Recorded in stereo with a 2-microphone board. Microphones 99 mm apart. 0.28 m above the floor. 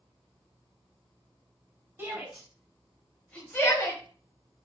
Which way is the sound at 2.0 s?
25° right (ahead or behind).